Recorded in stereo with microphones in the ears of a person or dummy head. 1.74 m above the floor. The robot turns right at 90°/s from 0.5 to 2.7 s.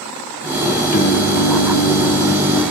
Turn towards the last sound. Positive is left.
turn(degrees=-145)